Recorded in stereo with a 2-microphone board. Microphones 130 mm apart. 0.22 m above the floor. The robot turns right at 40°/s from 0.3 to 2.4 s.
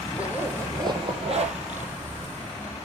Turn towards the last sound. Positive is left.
turn(degrees=-85)